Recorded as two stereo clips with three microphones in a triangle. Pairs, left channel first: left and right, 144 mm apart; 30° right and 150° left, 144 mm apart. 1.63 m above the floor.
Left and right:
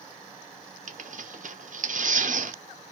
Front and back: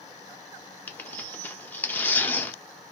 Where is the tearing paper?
110° right, 0.7 m.